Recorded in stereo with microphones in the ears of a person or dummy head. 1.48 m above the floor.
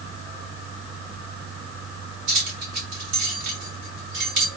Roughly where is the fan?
Right.